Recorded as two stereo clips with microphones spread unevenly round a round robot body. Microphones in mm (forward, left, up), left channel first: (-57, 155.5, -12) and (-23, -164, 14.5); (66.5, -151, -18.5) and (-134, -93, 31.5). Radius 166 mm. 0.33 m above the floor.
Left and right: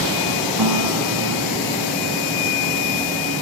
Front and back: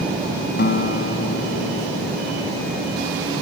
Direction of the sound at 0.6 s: 50° right.